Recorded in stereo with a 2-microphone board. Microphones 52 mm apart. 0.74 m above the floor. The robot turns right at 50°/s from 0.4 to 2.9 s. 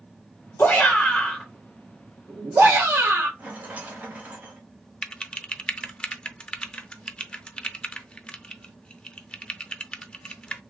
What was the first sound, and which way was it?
A shout, 130° left.